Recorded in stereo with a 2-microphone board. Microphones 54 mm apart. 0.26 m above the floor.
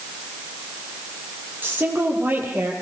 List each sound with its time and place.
1.6 s a woman speaking: 35° right (ahead or behind), 8.5 m; by 2.7 s 30° right (ahead or behind), 8.5 m